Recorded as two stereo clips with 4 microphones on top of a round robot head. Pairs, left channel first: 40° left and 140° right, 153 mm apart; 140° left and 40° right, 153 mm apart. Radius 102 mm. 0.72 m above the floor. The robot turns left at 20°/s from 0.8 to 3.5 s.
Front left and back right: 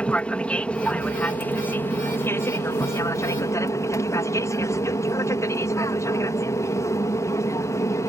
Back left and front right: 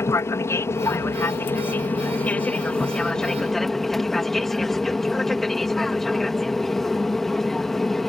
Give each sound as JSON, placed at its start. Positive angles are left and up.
{"t": 0.0, "sound": "an aircraft", "azimuth_deg": 110}